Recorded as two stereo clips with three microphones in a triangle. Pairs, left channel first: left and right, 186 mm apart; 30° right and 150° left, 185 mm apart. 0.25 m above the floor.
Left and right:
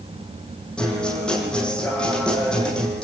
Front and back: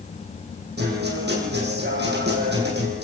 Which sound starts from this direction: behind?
A guitar, at 0.8 s.